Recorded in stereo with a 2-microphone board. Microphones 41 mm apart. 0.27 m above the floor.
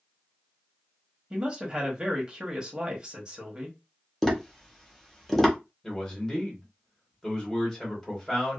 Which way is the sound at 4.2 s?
5° left (ahead or behind).